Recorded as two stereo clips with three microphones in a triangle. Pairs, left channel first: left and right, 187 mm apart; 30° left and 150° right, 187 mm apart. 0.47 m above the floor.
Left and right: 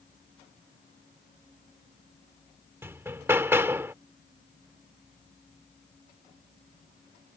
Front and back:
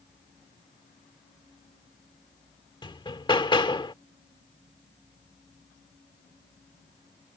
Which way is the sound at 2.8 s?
20° right.